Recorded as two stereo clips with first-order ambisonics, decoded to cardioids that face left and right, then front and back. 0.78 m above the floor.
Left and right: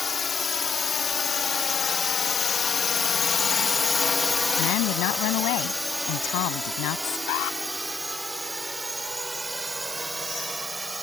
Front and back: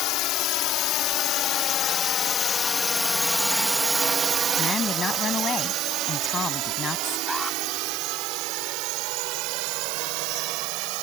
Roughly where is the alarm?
Left.